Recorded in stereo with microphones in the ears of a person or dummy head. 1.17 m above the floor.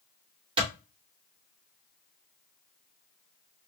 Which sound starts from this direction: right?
A clap, at 0.6 s.